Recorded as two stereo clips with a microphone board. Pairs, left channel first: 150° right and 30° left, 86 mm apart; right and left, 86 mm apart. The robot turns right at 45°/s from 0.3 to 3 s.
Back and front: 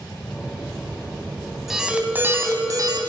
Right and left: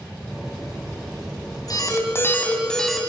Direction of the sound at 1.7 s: 55° right.